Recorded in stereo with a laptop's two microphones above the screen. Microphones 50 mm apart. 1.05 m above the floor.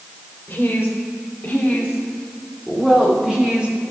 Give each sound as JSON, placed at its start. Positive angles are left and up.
{"t": 0.5, "sound": "a woman speaking", "side_deg": 40, "distance_m": 4.0}